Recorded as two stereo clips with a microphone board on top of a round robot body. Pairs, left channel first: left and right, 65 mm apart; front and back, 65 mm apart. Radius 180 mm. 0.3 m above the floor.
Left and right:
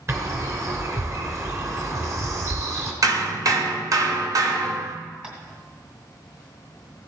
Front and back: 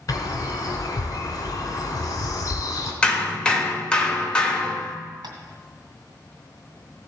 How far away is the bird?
About 2 m.